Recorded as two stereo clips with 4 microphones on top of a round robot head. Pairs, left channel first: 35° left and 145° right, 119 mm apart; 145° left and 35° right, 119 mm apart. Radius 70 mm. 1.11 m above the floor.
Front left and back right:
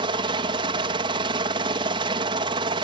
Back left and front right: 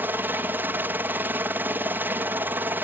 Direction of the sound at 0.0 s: 105° right.